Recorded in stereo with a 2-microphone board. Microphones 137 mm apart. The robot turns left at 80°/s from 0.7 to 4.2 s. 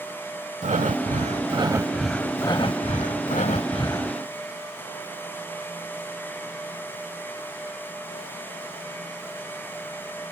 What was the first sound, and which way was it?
Breathing, 70° right.